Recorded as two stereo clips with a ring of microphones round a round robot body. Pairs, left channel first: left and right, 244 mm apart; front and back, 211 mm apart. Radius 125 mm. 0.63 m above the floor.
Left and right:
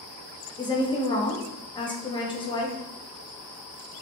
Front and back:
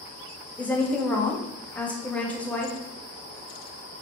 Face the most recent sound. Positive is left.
turn(degrees=70)